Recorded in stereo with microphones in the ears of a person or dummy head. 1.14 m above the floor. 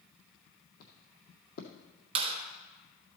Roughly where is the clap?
Right.